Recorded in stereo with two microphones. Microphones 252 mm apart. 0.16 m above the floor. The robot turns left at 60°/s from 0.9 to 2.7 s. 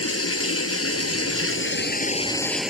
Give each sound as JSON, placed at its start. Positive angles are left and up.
{"t": 0.0, "sound": "running water", "azimuth_deg": 105}